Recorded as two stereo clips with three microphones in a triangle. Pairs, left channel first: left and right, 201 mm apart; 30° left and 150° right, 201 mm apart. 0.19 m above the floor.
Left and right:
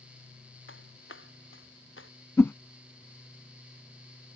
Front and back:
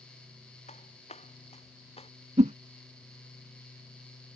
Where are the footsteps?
85° left; by 2.1 s 90° left.